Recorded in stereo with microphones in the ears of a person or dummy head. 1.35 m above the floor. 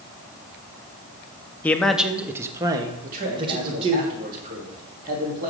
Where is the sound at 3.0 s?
45° right (ahead or behind), 3.5 m.